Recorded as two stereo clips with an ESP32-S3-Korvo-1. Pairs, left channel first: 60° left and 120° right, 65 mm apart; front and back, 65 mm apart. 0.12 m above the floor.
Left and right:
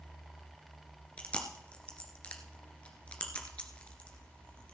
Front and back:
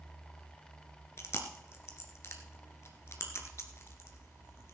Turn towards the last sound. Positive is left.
turn(degrees=-5)